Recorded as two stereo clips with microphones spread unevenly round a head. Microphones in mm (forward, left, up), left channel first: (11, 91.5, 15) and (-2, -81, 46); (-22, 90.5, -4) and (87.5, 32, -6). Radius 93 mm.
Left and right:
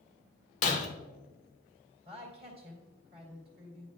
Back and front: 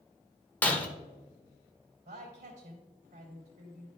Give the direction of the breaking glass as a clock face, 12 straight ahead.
9 o'clock.